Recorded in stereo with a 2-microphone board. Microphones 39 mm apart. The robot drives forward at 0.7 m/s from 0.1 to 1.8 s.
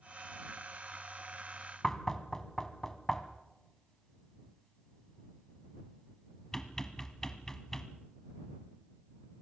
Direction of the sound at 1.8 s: 15° left (ahead or behind).